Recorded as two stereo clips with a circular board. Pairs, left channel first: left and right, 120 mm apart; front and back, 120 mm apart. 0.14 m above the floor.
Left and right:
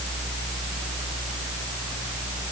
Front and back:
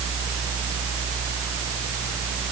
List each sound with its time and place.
Only background noise.